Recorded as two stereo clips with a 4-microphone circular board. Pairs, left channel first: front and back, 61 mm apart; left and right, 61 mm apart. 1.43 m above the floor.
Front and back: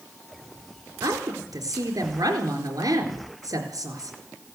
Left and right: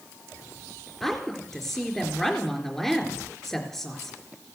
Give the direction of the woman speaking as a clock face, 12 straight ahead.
6 o'clock.